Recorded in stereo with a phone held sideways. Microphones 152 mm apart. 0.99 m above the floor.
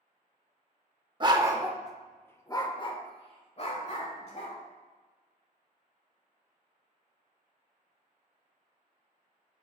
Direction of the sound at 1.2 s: 30° right (ahead or behind).